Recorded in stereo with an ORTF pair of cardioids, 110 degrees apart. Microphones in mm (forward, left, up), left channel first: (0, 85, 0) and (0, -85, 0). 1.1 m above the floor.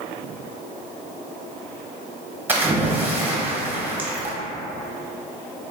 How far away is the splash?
About 0.6 m.